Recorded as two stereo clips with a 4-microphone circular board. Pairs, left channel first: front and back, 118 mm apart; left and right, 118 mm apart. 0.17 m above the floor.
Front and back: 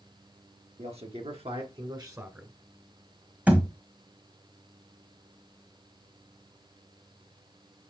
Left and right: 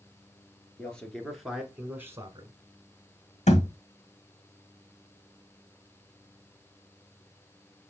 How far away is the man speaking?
About 2.5 m.